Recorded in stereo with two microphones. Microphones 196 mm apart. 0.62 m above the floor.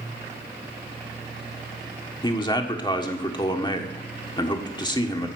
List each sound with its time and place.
2.2 s a man speaking: 25° left (ahead or behind), 1.5 m